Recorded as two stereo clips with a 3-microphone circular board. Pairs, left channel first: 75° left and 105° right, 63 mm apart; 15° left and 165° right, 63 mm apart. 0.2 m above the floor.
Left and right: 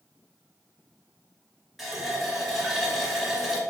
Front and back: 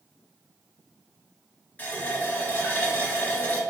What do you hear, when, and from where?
1.8 s a running tap: 20° right, 0.8 m